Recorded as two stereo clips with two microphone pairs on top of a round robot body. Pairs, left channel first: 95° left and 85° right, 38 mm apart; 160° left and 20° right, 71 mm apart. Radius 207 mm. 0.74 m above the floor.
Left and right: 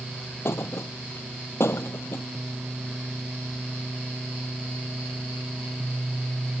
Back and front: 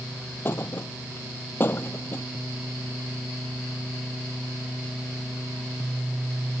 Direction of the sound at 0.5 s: 100° left.